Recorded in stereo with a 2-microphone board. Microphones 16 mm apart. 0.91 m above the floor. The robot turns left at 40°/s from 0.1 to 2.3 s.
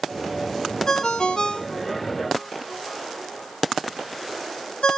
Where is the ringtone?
35° left (ahead or behind), 0.8 m; by 5.0 s 75° left (ahead or behind), 0.8 m.